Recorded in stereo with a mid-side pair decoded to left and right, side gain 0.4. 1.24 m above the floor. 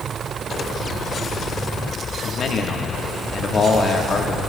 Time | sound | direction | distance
2.2 | a man speaking | 55° left | 1.3 m